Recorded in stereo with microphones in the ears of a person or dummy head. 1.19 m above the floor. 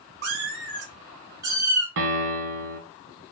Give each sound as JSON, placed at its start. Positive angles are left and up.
{"t": 0.2, "sound": "a cat meowing", "side_deg": -55, "distance_m": 0.8}
{"t": 2.0, "sound": "a piano", "side_deg": -60, "distance_m": 0.7}